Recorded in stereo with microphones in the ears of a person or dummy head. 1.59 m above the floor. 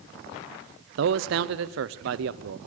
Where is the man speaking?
60° right (ahead or behind), 0.8 m.